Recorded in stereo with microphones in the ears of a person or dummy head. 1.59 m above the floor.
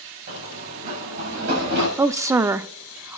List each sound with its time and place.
0.3 s running footsteps: 45° right (ahead or behind), 7 m; by 1.9 s 60° right (ahead or behind), 7.5 m
2.0 s a woman speaking: 15° right (ahead or behind), 0.5 m